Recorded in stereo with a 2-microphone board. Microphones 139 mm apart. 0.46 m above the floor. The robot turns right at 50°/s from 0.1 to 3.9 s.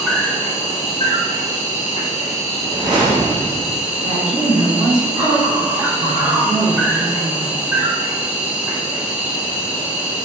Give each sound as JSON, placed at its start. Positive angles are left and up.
{"t": 0.0, "sound": "an insect", "azimuth_deg": 0, "distance_m": 0.9}
{"t": 2.6, "sound": "a whoosh", "azimuth_deg": -155, "distance_m": 1.3}
{"t": 4.0, "sound": "a woman speaking", "side_deg": -50, "distance_m": 1.9}